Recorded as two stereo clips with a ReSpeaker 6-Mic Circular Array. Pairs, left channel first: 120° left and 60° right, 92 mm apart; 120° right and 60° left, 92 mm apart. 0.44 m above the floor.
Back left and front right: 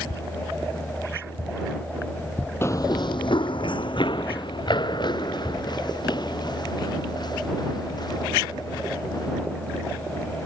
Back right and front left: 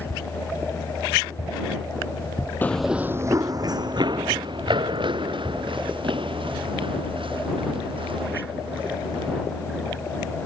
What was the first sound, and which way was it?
Running footsteps, 175° left.